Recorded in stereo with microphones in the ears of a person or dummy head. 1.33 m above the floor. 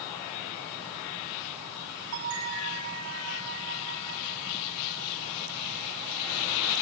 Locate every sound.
2.1 s a bell: 80° right, 3.5 m